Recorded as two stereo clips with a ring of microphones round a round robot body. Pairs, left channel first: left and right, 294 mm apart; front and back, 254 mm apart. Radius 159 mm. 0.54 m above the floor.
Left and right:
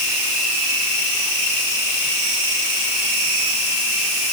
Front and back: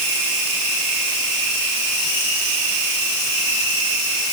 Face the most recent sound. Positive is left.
No sound to turn to.